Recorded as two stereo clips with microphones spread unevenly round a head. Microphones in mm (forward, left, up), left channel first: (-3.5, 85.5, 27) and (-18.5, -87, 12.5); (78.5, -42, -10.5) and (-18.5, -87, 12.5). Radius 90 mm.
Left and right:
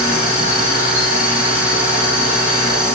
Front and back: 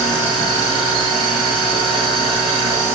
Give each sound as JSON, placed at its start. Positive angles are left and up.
{"t": 0.0, "sound": "a machine running", "azimuth_deg": 130, "distance_m": 1.1}